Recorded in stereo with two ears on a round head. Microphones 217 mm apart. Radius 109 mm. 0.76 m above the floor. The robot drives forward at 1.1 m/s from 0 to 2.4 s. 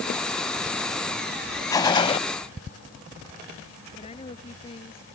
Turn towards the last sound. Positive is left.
turn(degrees=25)  # may be behind; listen again after turning